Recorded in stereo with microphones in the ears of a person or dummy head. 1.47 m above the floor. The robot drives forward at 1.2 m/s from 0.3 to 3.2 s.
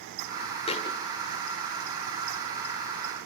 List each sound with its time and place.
0.7 s a thud: 30° left (ahead or behind), 2.0 m; by 1.0 s 25° left (ahead or behind), 2.5 m